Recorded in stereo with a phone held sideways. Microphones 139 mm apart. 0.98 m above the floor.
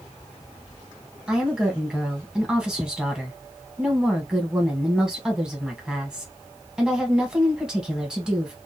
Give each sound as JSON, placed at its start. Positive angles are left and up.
{"t": 1.3, "sound": "a woman speaking", "side_deg": -5, "distance_m": 1.2}